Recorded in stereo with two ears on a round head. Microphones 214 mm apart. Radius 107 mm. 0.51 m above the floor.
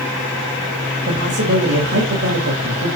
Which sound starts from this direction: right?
A man speaking, at 1.1 s.